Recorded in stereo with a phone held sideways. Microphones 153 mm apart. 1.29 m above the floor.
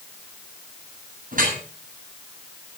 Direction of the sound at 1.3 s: 65° right (ahead or behind).